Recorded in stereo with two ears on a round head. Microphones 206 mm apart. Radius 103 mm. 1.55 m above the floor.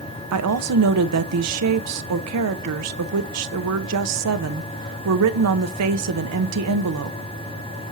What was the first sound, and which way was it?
A woman speaking, 80° right.